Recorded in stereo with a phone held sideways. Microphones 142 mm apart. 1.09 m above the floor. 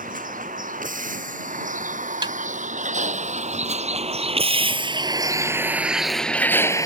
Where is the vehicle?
70° right (ahead or behind); by 6.9 s 25° left (ahead or behind).